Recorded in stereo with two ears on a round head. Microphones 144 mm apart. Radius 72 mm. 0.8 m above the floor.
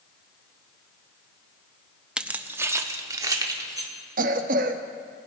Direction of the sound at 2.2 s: 5° right (ahead or behind).